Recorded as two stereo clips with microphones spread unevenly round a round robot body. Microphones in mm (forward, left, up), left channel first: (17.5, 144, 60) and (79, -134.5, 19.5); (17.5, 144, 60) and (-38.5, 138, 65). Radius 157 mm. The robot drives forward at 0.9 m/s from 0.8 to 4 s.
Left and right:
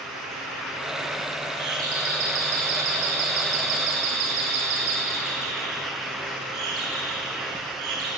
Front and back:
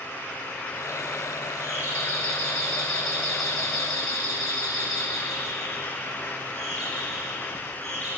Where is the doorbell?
60° right, 9 m; by 8.1 s 70° right, 8 m.